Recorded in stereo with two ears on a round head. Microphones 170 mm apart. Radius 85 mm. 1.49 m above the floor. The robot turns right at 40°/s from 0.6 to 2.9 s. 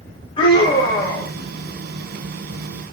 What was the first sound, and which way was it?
A scream, 30° left (ahead or behind).